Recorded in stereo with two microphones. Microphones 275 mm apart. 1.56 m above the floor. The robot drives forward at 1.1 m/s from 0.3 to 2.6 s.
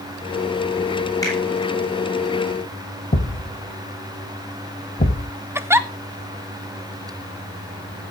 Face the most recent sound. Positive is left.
turn(degrees=-10)  # may be behind; listen again after turning